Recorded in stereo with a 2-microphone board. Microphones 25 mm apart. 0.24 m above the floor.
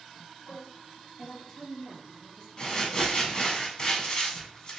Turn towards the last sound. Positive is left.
turn(degrees=30)  # may be behind; listen again after turning